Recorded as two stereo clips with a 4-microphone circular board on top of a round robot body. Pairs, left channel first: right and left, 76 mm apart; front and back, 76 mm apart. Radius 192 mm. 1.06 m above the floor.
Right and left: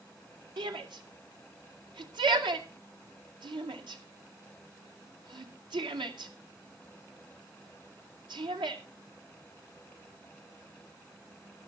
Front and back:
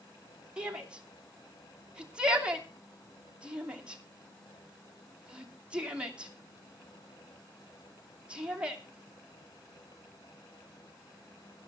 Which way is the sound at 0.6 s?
100° left.